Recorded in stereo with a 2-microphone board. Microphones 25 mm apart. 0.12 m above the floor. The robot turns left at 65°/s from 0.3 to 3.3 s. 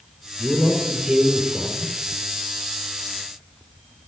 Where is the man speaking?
55° right, 4.5 m; by 1.9 s 155° right, 4.5 m.